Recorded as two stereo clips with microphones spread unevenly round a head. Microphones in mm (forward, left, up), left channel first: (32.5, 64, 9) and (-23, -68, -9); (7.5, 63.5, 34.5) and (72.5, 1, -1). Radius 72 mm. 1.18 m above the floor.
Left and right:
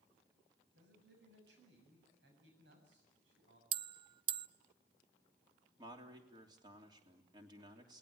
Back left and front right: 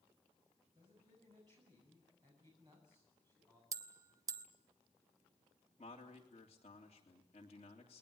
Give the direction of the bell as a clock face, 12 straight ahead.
4 o'clock.